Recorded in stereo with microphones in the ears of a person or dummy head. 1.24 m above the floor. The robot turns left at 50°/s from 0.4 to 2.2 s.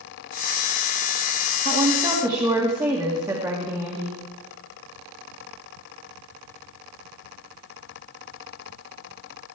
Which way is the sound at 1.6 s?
45° right (ahead or behind).